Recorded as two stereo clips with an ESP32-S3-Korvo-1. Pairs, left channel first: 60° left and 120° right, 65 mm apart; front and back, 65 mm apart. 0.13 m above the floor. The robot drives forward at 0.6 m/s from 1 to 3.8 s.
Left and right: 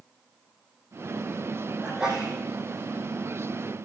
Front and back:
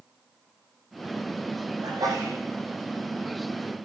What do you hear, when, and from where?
1.8 s a sneeze: 160° left, 7 m